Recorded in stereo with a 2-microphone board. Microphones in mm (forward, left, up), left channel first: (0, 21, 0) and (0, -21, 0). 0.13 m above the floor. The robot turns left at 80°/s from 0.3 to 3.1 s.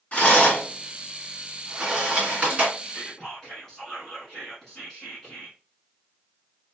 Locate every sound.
0.1 s a rattle: 30° left (ahead or behind), 1.9 m; by 2.7 s 30° right (ahead or behind), 1.9 m
2.8 s whispering: centre (ahead or behind), 1.1 m; by 5.6 s 10° left (ahead or behind), 1.1 m